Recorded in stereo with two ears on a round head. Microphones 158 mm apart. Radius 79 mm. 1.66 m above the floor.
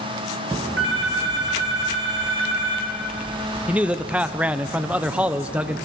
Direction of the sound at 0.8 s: 75° right (ahead or behind).